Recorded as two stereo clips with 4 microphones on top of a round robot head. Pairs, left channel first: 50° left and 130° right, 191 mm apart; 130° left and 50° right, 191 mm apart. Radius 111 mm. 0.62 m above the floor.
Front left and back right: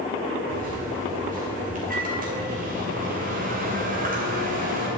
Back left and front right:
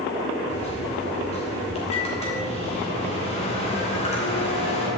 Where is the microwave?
175° right, 3 m.